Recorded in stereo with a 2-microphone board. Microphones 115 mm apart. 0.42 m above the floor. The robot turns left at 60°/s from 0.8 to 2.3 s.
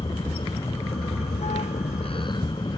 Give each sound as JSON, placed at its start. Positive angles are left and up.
{"t": 0.0, "sound": "a vehicle", "azimuth_deg": 135}